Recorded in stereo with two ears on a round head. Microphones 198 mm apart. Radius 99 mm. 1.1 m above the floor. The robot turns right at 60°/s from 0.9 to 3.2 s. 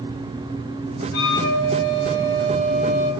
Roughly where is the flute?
Left.